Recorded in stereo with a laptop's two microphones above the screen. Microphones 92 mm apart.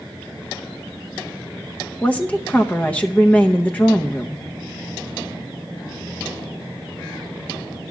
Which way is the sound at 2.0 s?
15° left (ahead or behind).